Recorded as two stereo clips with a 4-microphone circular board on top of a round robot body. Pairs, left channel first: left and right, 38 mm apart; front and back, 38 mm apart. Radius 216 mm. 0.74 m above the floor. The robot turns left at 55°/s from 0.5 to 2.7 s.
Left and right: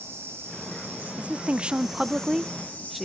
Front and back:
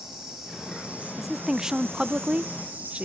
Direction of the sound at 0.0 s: 105° right.